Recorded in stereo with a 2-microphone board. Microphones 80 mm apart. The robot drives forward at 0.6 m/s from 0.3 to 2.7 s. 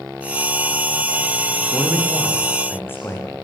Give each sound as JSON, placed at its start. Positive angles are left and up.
{"t": 1.7, "sound": "a man speaking", "side_deg": 25, "distance_m": 9.5}